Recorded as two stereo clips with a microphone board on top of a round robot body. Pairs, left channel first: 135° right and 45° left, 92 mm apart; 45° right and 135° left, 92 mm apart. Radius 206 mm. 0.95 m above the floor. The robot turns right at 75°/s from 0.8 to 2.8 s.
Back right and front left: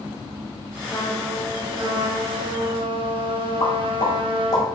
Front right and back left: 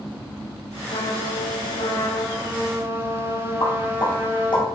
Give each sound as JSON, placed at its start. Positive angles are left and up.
{"t": 0.9, "sound": "a trumpet", "azimuth_deg": -75, "distance_m": 1.0}
{"t": 3.6, "sound": "a pop", "azimuth_deg": -85, "distance_m": 1.9}